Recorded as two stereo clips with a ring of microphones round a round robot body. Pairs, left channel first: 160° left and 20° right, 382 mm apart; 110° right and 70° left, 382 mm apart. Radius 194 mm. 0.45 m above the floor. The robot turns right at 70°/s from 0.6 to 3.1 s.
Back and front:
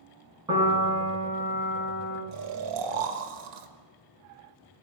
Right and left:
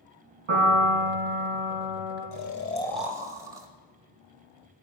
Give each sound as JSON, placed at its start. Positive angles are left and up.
{"t": 0.5, "sound": "a piano", "azimuth_deg": 60, "distance_m": 5.0}
{"t": 2.3, "sound": "snoring", "azimuth_deg": -70, "distance_m": 1.1}